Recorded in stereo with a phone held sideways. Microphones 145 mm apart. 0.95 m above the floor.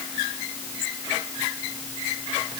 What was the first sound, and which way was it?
Only background noise.